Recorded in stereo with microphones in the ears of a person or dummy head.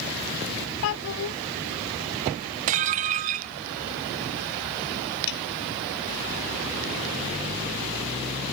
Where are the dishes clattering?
25° right (ahead or behind).